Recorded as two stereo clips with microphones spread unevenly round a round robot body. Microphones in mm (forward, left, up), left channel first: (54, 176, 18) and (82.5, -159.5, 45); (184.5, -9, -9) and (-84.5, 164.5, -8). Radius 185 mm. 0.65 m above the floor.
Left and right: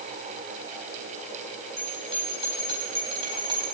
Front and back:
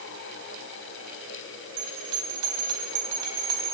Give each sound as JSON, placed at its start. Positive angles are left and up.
{"t": 1.8, "sound": "a bell", "azimuth_deg": -160, "distance_m": 3.5}